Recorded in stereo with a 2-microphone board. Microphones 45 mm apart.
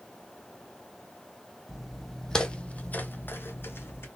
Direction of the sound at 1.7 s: 5° right (ahead or behind).